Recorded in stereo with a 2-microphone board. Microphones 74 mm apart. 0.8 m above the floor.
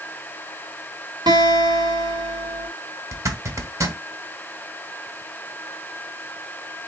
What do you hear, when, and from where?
1.3 s a guitar: 70° right (ahead or behind), 1.4 m
3.1 s a zipper: 45° right (ahead or behind), 1.1 m